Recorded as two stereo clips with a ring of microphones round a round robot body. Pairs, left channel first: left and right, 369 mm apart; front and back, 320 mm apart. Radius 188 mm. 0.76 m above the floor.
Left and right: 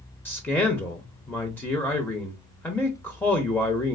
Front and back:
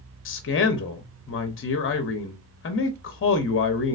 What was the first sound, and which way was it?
A man speaking, 10° left.